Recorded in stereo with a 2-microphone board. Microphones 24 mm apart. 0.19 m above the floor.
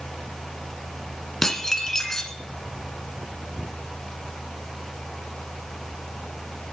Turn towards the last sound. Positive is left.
turn(degrees=20)  # may be behind; listen again after turning